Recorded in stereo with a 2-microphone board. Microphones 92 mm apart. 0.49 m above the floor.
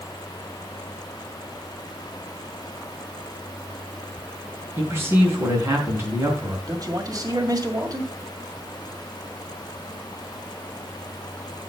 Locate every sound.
4.8 s a man speaking: 25° right (ahead or behind), 4.5 m
6.7 s a man speaking: 40° right (ahead or behind), 2 m